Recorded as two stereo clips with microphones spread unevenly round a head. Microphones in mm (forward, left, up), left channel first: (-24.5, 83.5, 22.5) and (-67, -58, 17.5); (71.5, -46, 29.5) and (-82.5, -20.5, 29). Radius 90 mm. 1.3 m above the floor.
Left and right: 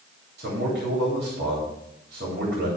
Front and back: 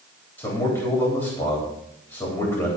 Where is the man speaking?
75° right, 3.5 m.